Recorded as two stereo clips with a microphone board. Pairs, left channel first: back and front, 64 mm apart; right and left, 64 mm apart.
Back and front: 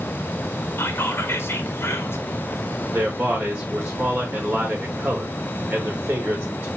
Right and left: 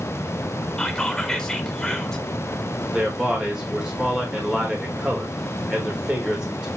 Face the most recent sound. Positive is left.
turn(degrees=25)